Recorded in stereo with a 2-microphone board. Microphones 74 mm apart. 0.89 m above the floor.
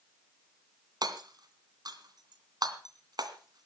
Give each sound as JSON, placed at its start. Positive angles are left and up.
{"t": 1.0, "sound": "hammering", "side_deg": -65, "distance_m": 2.5}